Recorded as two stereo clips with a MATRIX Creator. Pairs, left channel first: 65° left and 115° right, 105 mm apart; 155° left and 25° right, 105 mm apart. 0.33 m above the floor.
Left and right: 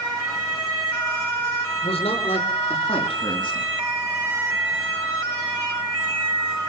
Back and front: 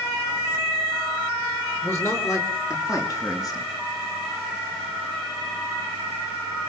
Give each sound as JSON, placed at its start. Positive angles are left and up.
{"t": 1.8, "sound": "a man speaking", "azimuth_deg": 90, "distance_m": 7.0}